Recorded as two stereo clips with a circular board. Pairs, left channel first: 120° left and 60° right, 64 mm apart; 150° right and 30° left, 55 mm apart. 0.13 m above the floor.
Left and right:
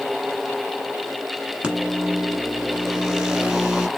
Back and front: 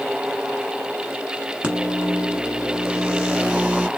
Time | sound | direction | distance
1.6 | a microwave | 5° right | 1.0 m